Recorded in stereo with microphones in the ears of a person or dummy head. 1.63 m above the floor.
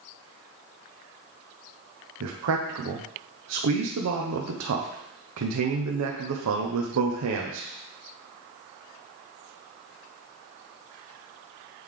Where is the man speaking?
75° right (ahead or behind), 0.8 m.